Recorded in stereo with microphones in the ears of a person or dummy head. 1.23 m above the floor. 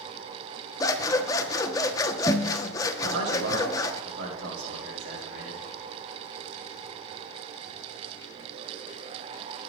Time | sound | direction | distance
0.8 | scissors | 20° left (ahead or behind) | 0.8 m
3.0 | a man speaking | 65° right (ahead or behind) | 5.5 m